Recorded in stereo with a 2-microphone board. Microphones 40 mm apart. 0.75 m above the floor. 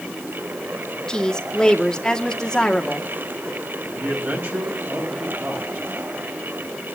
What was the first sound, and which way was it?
A woman speaking, 15° left (ahead or behind).